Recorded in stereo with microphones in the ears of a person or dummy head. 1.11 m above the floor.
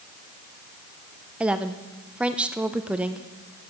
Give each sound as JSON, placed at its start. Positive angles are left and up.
{"t": 1.4, "sound": "a woman speaking", "side_deg": -15, "distance_m": 0.6}